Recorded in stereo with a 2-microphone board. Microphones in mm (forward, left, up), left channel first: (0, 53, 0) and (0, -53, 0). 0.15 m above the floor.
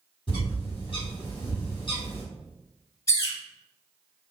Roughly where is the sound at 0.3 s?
Left.